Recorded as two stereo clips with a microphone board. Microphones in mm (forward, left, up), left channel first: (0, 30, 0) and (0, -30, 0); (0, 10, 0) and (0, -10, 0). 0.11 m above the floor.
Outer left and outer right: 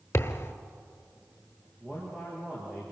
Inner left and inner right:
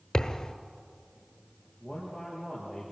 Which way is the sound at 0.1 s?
45° left (ahead or behind).